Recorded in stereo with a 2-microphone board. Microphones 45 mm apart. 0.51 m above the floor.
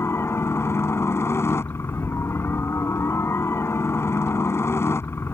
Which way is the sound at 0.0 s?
70° left (ahead or behind).